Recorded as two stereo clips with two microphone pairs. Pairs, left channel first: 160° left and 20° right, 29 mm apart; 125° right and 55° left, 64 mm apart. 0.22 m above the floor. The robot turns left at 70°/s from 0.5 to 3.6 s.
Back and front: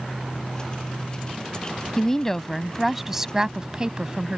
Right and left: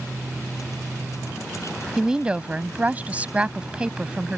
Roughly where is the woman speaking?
Behind left.